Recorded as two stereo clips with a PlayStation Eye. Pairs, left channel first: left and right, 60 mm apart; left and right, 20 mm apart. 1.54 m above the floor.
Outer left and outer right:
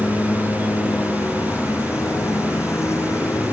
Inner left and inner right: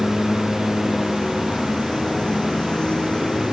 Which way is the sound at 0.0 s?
50° left (ahead or behind).